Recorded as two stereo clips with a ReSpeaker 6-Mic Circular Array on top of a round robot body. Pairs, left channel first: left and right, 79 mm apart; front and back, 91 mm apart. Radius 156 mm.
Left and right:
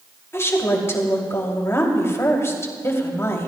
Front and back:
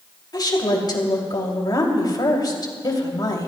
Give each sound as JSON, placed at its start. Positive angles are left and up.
{"t": 0.3, "sound": "a woman speaking", "azimuth_deg": 40, "distance_m": 2.5}